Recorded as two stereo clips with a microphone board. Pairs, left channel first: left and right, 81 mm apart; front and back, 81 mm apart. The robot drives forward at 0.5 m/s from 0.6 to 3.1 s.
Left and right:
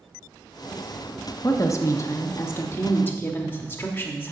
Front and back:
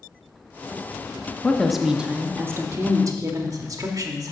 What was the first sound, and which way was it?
A woman speaking, 75° left.